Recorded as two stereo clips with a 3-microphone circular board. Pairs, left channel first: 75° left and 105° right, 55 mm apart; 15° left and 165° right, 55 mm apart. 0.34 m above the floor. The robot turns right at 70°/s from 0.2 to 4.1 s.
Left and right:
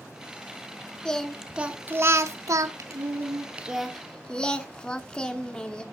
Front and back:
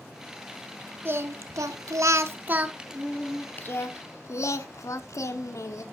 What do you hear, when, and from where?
1.1 s singing: 145° left, 0.6 m; by 5.8 s straight ahead, 0.6 m